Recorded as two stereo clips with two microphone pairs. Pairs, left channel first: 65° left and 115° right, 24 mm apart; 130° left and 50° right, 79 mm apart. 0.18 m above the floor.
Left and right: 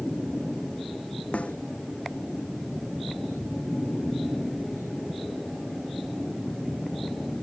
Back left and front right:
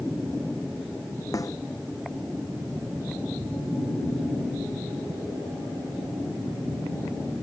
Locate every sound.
1.3 s a snare drum: 85° left